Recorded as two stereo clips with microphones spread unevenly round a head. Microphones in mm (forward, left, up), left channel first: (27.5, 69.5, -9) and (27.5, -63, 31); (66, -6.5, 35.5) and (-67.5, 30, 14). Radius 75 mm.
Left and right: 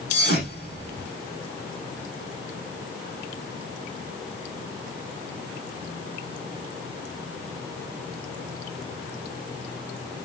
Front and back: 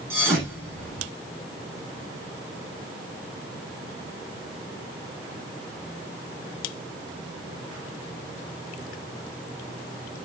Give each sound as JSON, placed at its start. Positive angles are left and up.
{"t": 0.1, "sound": "a thud", "azimuth_deg": 85, "distance_m": 8.0}